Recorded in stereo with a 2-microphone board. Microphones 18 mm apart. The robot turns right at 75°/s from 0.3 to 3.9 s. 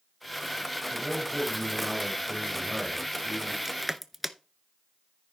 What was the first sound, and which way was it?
A man speaking, 115° right.